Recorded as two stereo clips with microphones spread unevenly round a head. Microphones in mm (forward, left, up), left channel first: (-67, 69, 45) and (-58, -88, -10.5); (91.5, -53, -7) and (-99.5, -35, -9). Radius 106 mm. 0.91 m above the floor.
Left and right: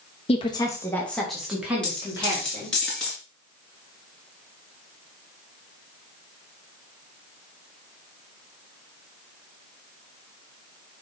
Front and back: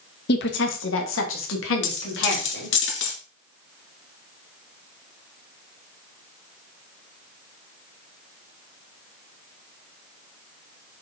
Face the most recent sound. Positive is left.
turn(degrees=15)